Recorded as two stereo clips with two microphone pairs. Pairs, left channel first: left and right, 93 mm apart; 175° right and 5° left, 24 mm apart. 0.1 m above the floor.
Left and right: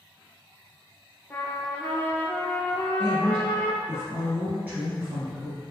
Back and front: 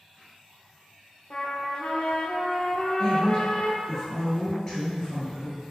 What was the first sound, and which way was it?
A trumpet, 155° left.